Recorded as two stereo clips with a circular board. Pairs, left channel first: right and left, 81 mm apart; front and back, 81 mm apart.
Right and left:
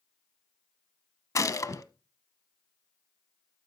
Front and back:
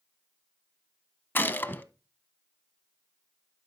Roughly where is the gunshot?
Ahead right.